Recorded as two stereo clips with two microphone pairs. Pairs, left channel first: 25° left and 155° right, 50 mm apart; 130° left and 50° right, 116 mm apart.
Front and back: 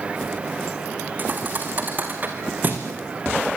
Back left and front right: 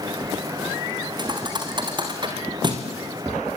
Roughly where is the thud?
Right.